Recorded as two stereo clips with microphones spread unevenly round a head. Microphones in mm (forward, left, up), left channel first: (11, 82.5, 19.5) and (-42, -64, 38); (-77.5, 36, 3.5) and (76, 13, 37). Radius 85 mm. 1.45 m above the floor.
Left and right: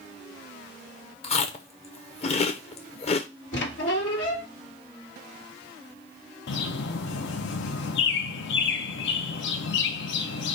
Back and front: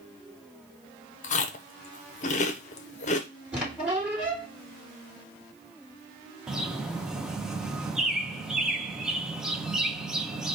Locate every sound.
1.2 s chewing: 125° left, 0.7 m
3.5 s a squeak: 70° left, 1.7 m
6.5 s a bird: 75° left, 0.6 m